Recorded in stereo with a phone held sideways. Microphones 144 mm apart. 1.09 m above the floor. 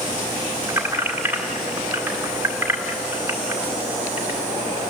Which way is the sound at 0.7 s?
15° right (ahead or behind).